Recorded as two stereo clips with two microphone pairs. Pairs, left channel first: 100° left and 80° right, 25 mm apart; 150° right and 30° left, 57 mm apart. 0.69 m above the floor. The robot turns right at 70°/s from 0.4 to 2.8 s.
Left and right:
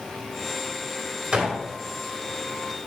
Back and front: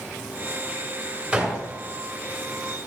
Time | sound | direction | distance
1.3 | a gunshot | 40° right | 2.5 m